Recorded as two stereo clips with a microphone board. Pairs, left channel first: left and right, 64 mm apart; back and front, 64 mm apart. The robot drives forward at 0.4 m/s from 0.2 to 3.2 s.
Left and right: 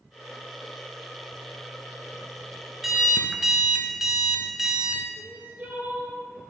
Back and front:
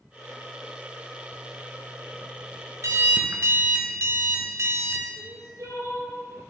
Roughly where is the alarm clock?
Ahead.